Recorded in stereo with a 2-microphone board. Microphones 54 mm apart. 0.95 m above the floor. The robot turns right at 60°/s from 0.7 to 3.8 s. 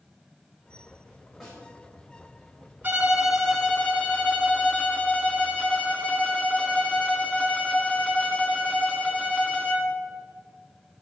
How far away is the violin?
About 1.8 m.